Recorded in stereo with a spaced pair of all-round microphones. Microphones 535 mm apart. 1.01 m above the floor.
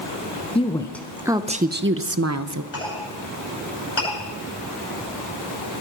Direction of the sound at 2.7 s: 55° left (ahead or behind).